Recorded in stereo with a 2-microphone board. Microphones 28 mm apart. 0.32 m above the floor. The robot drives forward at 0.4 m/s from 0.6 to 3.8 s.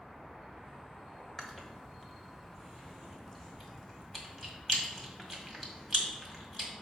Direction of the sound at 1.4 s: 20° left (ahead or behind).